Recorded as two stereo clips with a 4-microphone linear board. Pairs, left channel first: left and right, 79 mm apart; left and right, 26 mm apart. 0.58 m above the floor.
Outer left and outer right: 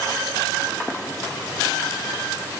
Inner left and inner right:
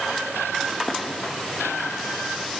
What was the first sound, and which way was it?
Only background noise.